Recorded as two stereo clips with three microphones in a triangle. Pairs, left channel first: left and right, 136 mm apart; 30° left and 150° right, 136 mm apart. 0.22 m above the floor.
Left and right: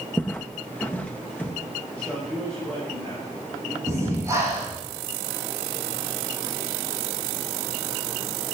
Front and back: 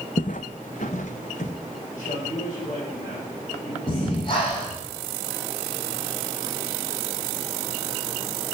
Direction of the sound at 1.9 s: 10° left.